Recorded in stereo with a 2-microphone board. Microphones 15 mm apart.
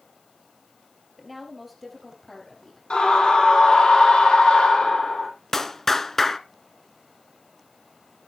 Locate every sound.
1.2 s a woman speaking: 10° right (ahead or behind), 3.5 m; by 2.8 s 20° left (ahead or behind), 5 m
2.9 s a scream: 70° left (ahead or behind), 4.5 m
5.5 s a clap: 20° left (ahead or behind), 0.9 m